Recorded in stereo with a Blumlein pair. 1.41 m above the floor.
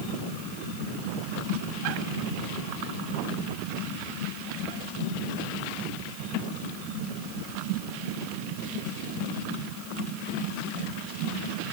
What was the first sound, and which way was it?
Only background noise.